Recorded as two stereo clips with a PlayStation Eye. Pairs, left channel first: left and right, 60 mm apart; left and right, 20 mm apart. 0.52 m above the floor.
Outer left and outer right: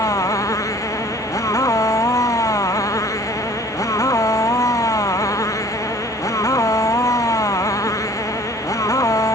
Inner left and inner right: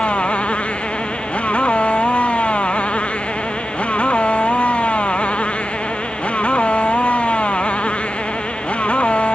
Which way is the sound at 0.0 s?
70° left (ahead or behind).